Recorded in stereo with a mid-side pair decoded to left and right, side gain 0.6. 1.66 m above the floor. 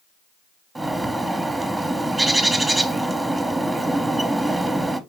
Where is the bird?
15° right, 0.8 m.